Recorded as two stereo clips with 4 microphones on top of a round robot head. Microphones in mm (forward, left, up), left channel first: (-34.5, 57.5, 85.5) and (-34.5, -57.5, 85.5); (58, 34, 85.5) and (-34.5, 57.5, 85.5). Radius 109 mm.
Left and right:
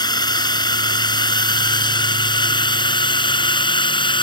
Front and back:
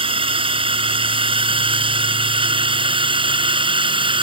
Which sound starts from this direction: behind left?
A drone, at 0.0 s.